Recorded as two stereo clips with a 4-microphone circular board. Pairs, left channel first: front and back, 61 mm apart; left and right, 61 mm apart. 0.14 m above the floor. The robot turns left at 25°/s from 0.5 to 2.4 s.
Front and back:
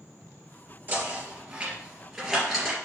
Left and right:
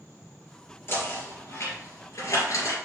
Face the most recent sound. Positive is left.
turn(degrees=90)